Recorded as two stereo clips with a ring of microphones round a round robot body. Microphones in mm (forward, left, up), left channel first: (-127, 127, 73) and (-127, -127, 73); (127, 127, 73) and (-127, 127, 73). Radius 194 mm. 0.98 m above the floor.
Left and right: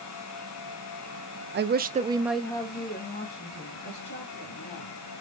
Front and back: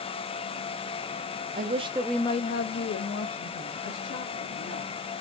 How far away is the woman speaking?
About 0.7 m.